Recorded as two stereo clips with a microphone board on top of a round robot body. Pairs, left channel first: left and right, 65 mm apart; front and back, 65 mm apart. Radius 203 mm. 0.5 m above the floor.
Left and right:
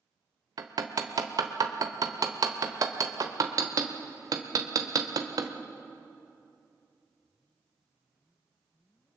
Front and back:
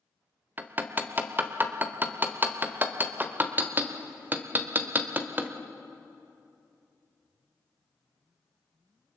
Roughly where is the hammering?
Behind right.